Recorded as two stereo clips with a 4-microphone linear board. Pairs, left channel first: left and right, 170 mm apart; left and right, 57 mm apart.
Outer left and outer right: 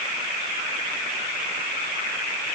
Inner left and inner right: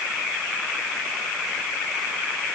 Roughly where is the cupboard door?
I don't hear a cupboard door.